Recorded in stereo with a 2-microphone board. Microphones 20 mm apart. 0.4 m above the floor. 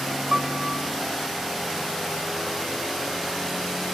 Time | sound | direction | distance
0.3 | a piano | 45° right (ahead or behind) | ?